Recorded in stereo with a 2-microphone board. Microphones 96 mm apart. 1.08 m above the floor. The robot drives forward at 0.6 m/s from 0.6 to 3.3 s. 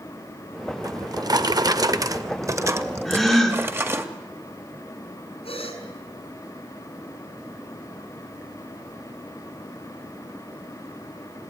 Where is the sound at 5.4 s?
80° left, 3.5 m.